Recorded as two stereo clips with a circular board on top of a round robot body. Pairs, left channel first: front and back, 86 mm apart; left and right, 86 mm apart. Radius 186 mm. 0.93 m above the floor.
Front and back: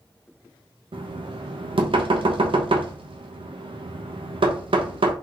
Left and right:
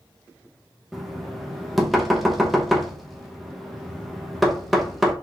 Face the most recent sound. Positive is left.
turn(degrees=180)